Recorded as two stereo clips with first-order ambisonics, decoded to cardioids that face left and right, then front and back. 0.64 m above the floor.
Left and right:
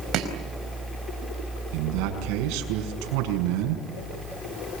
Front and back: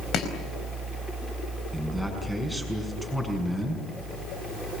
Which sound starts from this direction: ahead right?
Chopping, at 0.1 s.